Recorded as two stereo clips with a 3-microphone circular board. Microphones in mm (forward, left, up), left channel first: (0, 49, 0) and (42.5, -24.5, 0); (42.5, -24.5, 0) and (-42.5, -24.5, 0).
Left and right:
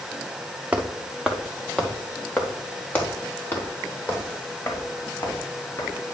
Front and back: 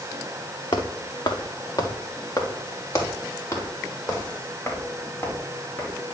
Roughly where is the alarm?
I don't hear an alarm.